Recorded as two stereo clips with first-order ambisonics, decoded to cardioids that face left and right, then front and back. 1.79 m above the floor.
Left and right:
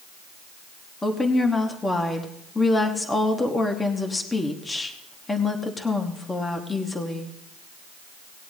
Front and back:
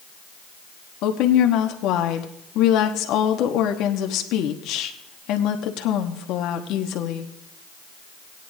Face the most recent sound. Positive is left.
turn(degrees=15)